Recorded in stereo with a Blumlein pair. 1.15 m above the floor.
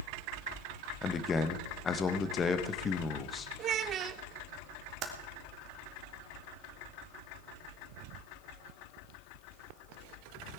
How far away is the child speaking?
About 0.8 m.